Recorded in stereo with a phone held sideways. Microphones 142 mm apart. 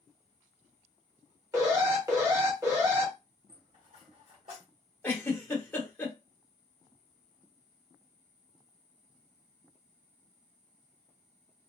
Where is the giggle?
15° left (ahead or behind), 1.0 m.